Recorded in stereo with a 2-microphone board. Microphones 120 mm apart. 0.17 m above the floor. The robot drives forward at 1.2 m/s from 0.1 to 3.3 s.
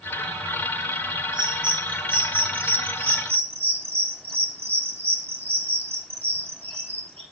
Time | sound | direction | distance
1.3 | a bird | 40° right (ahead or behind) | 6.5 m